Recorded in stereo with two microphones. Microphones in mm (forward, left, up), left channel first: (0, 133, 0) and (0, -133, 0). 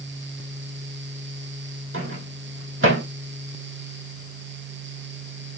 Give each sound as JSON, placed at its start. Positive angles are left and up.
{"t": 1.9, "sound": "a microwave", "side_deg": -50, "distance_m": 4.0}